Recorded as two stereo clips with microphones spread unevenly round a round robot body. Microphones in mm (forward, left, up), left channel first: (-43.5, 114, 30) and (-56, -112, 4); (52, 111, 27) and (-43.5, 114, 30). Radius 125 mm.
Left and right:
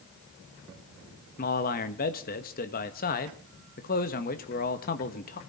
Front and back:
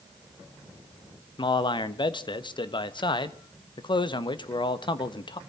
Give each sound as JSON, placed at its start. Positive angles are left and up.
{"t": 1.4, "sound": "a man speaking", "azimuth_deg": 30, "distance_m": 1.3}